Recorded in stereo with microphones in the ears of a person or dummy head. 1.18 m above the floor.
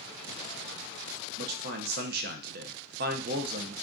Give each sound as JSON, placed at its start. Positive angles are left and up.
{"t": 1.4, "sound": "a man speaking", "side_deg": -50, "distance_m": 0.6}